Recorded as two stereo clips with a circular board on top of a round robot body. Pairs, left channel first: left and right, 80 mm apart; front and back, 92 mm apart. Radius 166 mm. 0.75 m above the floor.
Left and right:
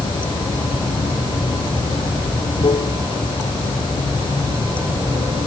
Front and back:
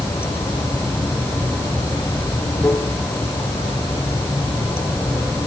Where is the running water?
70° left.